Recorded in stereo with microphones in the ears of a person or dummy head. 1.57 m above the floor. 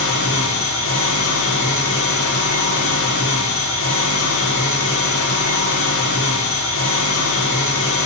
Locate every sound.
0.0 s an engine running: 75° left (ahead or behind), 1.2 m